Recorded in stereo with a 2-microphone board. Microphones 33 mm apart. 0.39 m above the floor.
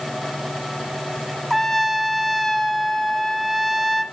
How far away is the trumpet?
About 0.9 m.